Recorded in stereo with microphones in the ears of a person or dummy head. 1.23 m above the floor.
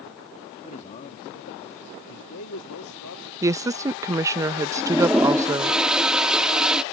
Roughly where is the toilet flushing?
Centre.